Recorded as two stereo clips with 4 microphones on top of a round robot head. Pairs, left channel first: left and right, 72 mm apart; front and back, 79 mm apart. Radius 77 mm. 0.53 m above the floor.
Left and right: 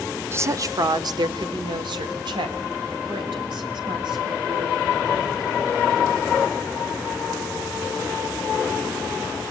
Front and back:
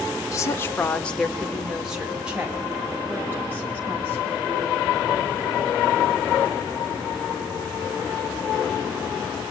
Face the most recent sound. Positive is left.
turn(degrees=-115)